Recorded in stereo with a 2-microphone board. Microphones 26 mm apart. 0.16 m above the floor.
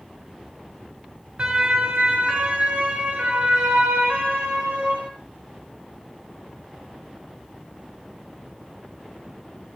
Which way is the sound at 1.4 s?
50° right (ahead or behind).